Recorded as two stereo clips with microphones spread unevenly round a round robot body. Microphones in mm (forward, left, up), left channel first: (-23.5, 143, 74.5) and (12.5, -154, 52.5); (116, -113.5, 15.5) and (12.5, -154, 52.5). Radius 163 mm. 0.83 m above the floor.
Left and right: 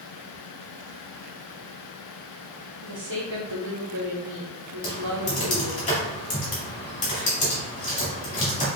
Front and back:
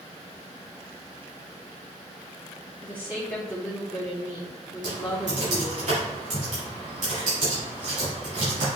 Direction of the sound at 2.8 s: 45° right.